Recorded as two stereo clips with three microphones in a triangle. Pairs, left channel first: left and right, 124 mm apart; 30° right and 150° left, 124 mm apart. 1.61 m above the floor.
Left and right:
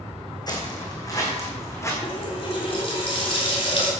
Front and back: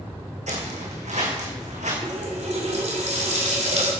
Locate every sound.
0.5 s footsteps: 145° left, 4.5 m; by 1.9 s 155° left, 4.5 m
2.0 s a running tap: 130° left, 3.5 m